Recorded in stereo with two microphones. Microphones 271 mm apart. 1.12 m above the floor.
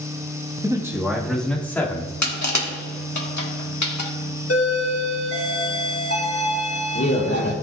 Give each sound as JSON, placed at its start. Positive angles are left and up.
{"t": 0.6, "sound": "a man speaking", "side_deg": -15, "distance_m": 1.4}
{"t": 2.2, "sound": "crushing", "side_deg": 75, "distance_m": 1.5}
{"t": 4.5, "sound": "a doorbell", "side_deg": 55, "distance_m": 2.0}